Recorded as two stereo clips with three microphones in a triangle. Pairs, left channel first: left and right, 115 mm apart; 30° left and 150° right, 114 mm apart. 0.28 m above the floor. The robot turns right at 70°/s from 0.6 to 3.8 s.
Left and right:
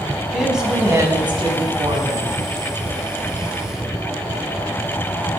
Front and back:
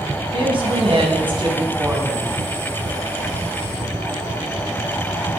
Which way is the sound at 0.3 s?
175° right.